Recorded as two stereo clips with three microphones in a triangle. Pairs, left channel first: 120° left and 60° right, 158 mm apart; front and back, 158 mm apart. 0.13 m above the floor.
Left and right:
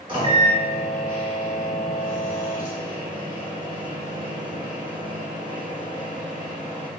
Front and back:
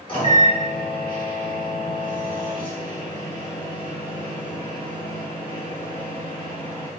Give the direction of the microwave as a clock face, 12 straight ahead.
1 o'clock.